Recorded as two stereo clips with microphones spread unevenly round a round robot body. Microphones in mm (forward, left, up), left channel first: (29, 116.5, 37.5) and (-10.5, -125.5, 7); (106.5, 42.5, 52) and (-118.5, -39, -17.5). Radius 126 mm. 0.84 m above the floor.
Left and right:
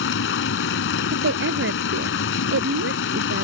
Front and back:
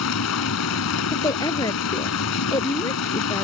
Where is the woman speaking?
55° right.